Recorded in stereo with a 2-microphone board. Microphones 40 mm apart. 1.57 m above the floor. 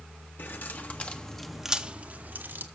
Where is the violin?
No violin in this recording.